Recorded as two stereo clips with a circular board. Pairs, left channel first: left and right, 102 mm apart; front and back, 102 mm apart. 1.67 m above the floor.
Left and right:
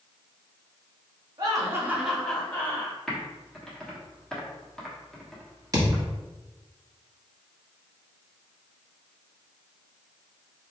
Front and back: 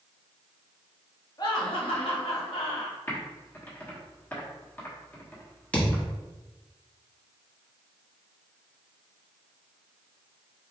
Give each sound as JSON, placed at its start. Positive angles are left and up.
{"t": 1.4, "sound": "laughter", "azimuth_deg": -45, "distance_m": 1.5}
{"t": 3.1, "sound": "typing on a keyboard", "azimuth_deg": 20, "distance_m": 1.2}
{"t": 5.7, "sound": "a thud", "azimuth_deg": -65, "distance_m": 1.3}